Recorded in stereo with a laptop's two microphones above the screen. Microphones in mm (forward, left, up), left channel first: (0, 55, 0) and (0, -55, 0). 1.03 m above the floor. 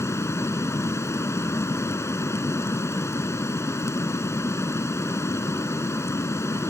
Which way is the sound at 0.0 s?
25° left (ahead or behind).